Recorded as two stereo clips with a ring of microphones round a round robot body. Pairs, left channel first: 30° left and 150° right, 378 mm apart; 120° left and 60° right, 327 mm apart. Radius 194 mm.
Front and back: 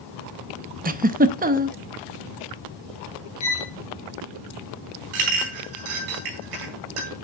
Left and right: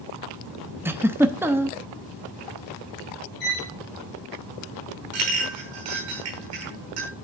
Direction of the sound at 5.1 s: 115° right.